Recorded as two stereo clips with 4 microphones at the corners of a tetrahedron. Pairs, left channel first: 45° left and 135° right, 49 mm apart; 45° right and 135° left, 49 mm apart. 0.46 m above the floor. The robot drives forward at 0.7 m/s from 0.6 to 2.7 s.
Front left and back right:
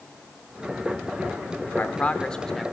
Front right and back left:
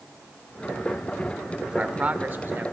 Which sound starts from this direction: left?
A man speaking, at 1.7 s.